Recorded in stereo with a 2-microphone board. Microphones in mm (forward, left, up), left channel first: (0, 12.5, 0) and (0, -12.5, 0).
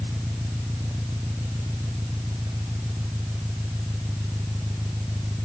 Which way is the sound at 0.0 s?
80° right.